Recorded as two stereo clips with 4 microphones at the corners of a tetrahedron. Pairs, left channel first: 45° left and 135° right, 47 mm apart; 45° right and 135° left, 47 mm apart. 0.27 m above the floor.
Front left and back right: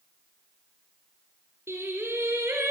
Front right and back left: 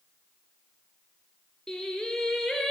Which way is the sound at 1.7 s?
125° right.